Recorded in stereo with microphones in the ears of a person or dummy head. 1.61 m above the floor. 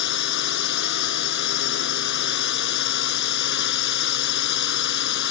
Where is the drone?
60° left (ahead or behind).